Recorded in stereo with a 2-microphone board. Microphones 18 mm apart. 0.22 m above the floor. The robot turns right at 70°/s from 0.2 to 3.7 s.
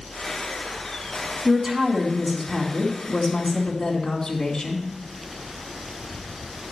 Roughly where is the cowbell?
No cowbell in this recording.